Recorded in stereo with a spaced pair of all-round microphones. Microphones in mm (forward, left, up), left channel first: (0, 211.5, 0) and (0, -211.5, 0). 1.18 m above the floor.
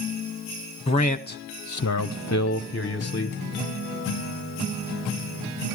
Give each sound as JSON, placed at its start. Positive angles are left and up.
{"t": 0.9, "sound": "a man speaking", "side_deg": 15, "distance_m": 1.0}